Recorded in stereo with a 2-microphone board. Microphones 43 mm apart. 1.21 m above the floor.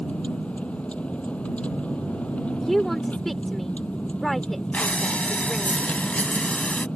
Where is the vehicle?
30° left (ahead or behind).